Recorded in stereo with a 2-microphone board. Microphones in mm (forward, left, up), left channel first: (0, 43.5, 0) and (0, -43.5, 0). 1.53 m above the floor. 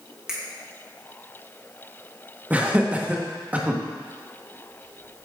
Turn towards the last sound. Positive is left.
turn(degrees=-15)  # may be behind; listen again after turning